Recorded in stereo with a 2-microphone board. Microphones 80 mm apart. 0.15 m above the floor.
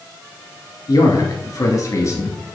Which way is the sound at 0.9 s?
50° left (ahead or behind).